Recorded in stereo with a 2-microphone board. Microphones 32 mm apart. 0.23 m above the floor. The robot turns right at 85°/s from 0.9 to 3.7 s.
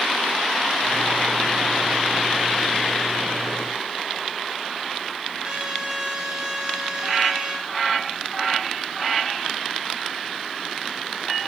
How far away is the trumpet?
About 3 m.